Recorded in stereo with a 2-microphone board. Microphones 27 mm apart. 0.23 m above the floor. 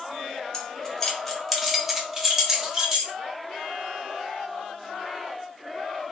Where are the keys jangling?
20° left (ahead or behind), 0.9 m; by 3.1 s 20° right (ahead or behind), 1.4 m.